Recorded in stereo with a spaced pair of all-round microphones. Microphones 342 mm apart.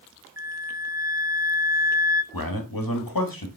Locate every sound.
0.4 s a flute: 10° right (ahead or behind), 0.6 m
2.3 s a man speaking: 90° left, 1.8 m